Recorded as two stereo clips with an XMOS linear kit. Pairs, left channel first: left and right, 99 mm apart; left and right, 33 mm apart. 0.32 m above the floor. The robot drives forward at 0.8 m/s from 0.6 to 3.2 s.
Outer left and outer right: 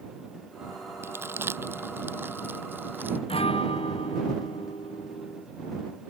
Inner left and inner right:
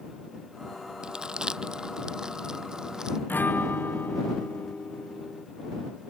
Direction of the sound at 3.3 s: 75° left (ahead or behind).